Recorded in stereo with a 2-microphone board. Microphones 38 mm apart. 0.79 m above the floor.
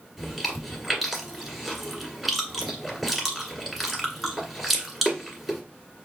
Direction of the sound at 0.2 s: 5° right (ahead or behind).